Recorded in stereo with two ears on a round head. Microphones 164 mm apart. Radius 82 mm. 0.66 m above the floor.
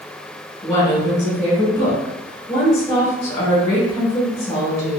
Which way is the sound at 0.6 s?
15° left (ahead or behind).